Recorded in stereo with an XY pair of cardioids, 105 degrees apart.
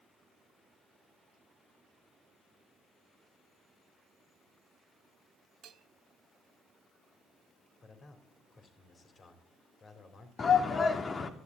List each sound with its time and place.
5.6 s a bell: 70° right, 1.3 m
7.8 s a man speaking: 40° left, 3.5 m
10.4 s a shout: 40° left, 2.5 m